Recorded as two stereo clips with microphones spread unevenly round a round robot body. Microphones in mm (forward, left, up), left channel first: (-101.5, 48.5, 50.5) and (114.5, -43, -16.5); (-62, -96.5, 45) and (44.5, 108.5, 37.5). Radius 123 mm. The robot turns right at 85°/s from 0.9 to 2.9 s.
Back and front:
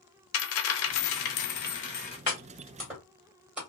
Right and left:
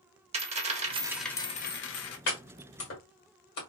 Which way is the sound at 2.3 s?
155° right.